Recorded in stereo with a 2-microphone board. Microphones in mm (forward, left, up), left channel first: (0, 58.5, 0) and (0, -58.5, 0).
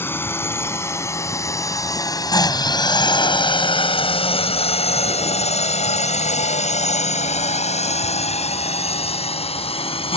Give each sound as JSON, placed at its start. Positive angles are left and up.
{"t": 0.0, "sound": "a drone", "side_deg": 20}